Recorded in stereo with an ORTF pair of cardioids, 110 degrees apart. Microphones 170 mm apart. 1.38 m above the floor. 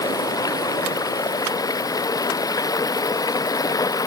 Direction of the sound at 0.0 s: 20° left.